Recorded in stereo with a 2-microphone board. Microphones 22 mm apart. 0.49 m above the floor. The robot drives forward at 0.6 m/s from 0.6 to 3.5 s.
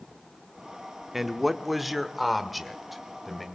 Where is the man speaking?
10° right (ahead or behind), 0.7 m; by 3.5 s 5° right (ahead or behind), 1.7 m.